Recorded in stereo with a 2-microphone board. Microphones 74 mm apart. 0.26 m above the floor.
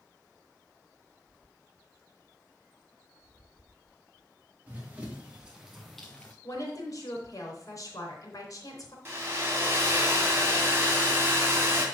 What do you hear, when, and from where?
4.7 s running footsteps: 25° right (ahead or behind), 2.5 m; by 6.3 s 20° left (ahead or behind), 1.3 m
6.4 s a woman speaking: 50° left (ahead or behind), 3.5 m
9.1 s a hair dryer: 30° right (ahead or behind), 2 m